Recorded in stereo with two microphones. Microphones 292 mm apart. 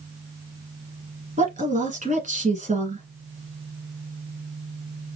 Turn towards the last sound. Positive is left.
turn(degrees=-25)  # may be behind; listen again after turning